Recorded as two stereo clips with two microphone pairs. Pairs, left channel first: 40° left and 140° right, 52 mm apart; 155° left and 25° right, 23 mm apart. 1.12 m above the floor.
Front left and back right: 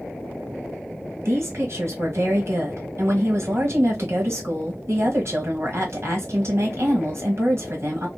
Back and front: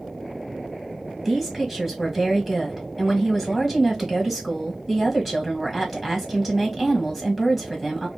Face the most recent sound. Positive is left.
turn(degrees=-105)